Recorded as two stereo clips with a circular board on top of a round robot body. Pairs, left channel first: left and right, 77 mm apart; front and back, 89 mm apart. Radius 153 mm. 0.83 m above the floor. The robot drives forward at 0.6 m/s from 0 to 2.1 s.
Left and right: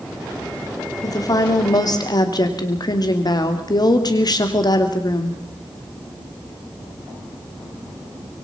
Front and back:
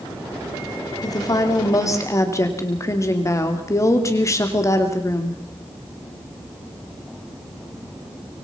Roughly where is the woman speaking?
Ahead left.